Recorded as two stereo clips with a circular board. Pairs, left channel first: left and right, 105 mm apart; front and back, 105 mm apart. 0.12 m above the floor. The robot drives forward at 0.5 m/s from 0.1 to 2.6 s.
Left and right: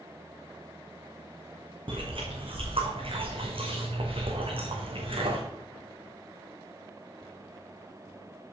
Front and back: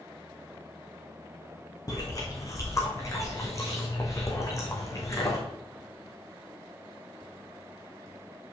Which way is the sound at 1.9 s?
55° right.